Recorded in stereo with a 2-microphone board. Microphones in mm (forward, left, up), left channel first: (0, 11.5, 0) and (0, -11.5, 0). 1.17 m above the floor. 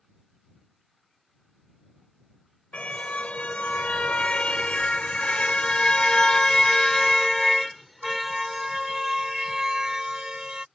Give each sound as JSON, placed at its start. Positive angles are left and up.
{"t": 2.7, "sound": "a car horn", "side_deg": 75}